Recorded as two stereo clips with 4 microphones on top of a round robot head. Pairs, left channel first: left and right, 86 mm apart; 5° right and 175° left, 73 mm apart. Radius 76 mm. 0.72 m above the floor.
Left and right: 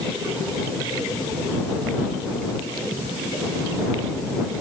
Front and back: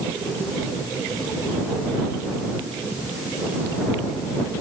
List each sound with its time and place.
Only background noise.